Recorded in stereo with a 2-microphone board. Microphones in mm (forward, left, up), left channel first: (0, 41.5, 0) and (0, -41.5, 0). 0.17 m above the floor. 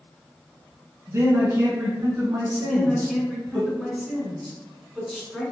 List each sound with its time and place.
1.1 s a man speaking: 30° right (ahead or behind), 1.6 m
2.6 s a man speaking: centre (ahead or behind), 1.6 m